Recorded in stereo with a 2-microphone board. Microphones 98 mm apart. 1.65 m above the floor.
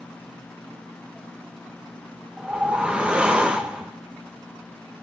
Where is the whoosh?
10° right (ahead or behind), 1.1 m.